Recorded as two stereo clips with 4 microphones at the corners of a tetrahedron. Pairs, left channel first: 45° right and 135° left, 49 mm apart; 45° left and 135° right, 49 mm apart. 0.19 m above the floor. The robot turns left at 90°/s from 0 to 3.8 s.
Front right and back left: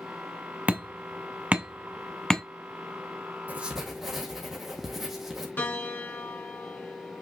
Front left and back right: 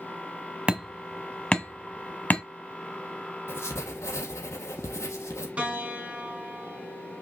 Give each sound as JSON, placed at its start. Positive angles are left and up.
{"t": 0.7, "sound": "hammering", "azimuth_deg": 175, "distance_m": 1.2}
{"t": 3.5, "sound": "writing", "azimuth_deg": 80, "distance_m": 2.0}
{"t": 5.6, "sound": "a piano", "azimuth_deg": -75, "distance_m": 2.5}